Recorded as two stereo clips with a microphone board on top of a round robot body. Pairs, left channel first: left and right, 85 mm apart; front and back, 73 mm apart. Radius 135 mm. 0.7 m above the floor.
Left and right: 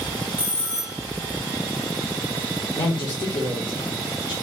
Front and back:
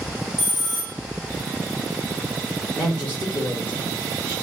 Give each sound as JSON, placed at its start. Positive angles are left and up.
{"t": 0.4, "sound": "a bell", "azimuth_deg": 20, "distance_m": 1.7}
{"t": 2.8, "sound": "a man speaking", "azimuth_deg": 70, "distance_m": 2.5}